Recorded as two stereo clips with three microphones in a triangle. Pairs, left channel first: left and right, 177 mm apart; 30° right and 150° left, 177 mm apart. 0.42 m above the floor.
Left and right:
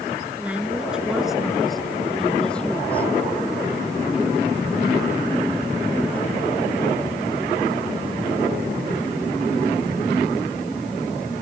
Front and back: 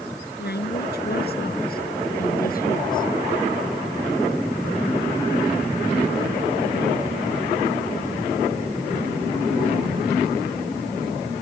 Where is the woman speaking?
5° right; by 3.1 s 10° left.